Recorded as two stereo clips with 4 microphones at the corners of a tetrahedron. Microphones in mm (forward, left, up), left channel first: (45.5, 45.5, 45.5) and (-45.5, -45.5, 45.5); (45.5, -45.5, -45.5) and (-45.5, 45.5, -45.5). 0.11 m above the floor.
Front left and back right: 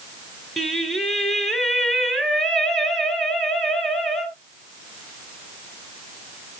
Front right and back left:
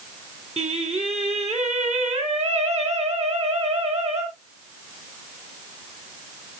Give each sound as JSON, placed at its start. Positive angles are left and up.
{"t": 0.6, "sound": "singing", "azimuth_deg": 135, "distance_m": 1.6}